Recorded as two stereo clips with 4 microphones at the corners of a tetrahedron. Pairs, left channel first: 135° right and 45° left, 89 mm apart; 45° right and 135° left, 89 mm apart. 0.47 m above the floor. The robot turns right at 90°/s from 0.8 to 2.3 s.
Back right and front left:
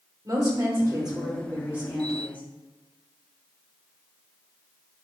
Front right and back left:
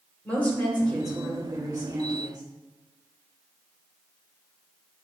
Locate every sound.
0.2 s a woman speaking: 25° left, 1.7 m; by 2.4 s 160° left, 1.7 m